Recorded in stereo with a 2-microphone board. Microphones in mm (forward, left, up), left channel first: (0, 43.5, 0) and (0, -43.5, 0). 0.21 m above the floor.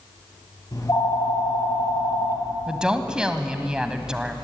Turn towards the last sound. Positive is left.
turn(degrees=-10)  # may be behind; listen again after turning